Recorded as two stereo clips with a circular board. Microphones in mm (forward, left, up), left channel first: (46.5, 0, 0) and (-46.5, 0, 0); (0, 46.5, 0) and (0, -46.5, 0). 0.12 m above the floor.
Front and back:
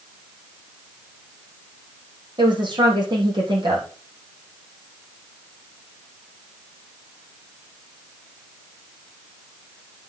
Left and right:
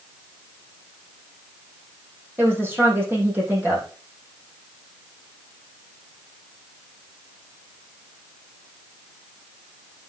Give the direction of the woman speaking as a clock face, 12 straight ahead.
5 o'clock.